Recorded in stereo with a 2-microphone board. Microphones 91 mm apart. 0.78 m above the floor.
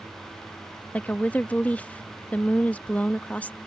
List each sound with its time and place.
0.9 s a woman speaking: 15° left (ahead or behind)